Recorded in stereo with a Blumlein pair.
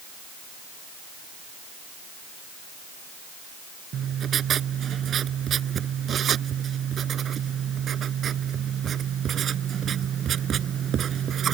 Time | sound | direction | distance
3.9 | writing | 25° right | ?